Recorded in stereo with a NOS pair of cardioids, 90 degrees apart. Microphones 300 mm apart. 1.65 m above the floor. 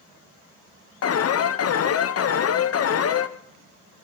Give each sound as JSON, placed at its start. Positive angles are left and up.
{"t": 1.0, "sound": "an alarm", "azimuth_deg": 55, "distance_m": 1.7}